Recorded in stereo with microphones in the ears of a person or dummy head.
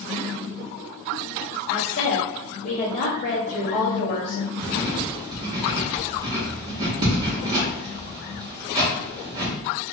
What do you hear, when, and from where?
1.7 s a woman speaking: 45° left (ahead or behind), 1.1 m
4.6 s writing: 25° right (ahead or behind), 0.9 m